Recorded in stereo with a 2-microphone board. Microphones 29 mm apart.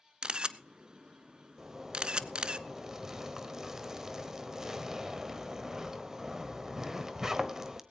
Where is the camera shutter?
35° right (ahead or behind), 0.6 m.